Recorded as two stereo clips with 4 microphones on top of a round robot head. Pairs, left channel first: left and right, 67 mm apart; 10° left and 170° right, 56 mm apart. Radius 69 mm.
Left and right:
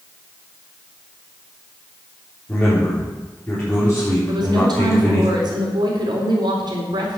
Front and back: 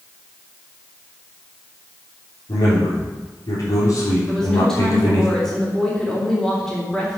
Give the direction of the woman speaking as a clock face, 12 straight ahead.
2 o'clock.